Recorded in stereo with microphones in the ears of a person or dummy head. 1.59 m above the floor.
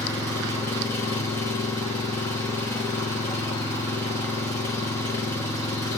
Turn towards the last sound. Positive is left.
turn(degrees=15)  # may be behind; listen again after turning